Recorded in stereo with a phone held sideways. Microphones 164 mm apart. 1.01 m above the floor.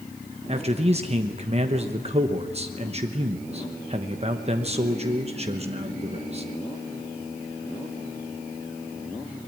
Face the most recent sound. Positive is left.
turn(degrees=-40)  # may be behind; listen again after turning